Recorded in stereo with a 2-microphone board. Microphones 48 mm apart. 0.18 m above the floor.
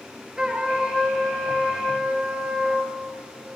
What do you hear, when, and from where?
0.4 s a trumpet: 15° right (ahead or behind), 1.5 m